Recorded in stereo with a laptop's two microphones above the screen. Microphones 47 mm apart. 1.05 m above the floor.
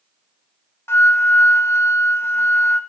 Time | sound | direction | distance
0.9 | a flute | 60° left (ahead or behind) | 0.5 m